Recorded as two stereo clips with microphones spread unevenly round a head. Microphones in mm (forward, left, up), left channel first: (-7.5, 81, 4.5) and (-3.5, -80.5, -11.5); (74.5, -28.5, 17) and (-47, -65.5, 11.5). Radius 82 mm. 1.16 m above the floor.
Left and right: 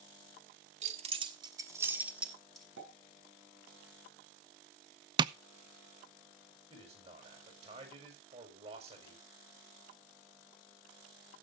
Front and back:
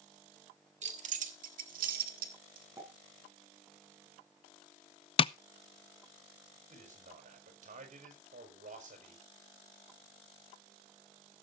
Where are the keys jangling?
135° right, 1.6 m; by 2.7 s straight behind, 2 m.